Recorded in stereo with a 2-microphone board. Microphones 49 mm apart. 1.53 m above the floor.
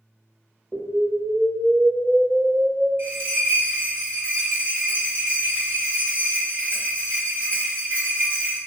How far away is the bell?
About 1.0 m.